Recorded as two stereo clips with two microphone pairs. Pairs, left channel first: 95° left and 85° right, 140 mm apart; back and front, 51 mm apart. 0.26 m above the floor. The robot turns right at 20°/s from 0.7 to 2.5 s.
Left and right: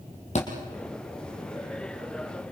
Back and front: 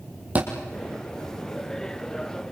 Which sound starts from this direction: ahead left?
A thud, at 0.3 s.